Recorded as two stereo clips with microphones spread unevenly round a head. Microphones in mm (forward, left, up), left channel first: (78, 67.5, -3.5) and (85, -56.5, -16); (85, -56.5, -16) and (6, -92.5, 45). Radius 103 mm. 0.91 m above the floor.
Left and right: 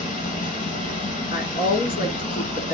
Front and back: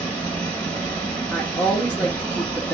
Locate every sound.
0.0 s running water: 125° left, 3.5 m
1.3 s a woman speaking: 105° left, 2.5 m